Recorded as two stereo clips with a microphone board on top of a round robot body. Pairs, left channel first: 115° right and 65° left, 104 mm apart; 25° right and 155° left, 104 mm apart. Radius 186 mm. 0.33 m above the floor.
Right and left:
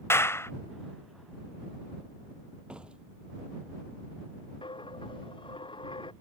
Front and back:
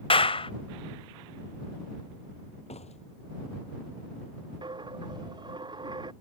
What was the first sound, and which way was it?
A clap, 45° right.